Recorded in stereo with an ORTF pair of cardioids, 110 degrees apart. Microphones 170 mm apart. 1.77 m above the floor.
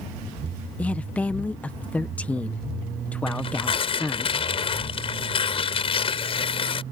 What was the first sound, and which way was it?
A woman speaking, 10° left.